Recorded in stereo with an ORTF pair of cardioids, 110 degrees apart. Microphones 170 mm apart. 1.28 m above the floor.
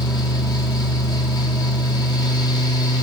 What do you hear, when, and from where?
0.0 s a fan: 25° left, 1.5 m